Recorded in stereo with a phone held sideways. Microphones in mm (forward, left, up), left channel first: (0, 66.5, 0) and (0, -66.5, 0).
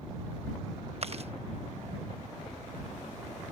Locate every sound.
1.0 s chewing: 50° right (ahead or behind)